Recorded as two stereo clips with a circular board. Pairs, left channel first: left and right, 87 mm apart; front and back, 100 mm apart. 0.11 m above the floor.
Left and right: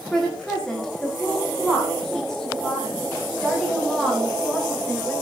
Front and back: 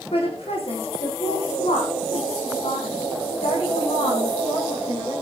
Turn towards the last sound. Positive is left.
turn(degrees=5)